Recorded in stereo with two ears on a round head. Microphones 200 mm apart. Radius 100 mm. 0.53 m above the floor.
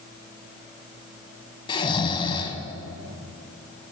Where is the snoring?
25° left (ahead or behind), 1.0 m.